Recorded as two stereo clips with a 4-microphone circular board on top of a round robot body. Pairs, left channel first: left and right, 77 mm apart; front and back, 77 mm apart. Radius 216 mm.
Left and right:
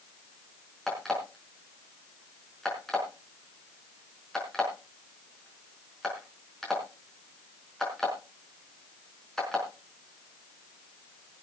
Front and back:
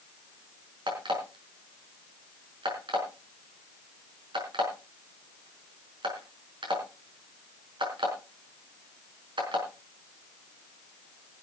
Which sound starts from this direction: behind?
An alarm clock, at 0.9 s.